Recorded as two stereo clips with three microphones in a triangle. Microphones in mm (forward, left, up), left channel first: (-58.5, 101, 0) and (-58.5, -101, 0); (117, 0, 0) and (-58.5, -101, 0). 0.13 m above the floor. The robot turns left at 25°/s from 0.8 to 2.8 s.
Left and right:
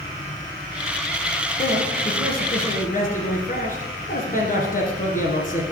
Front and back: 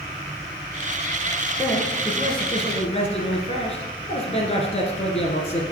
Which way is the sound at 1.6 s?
105° left.